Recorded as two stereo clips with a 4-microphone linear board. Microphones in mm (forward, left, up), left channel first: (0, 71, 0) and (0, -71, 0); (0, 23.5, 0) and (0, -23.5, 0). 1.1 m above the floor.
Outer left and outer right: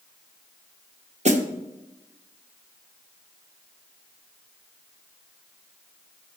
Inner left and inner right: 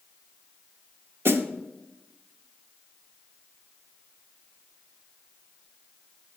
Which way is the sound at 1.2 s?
55° right (ahead or behind).